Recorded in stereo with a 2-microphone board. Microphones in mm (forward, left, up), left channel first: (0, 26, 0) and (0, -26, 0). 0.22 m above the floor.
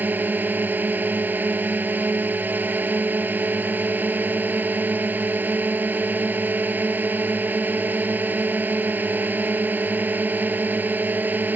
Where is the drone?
40° right (ahead or behind).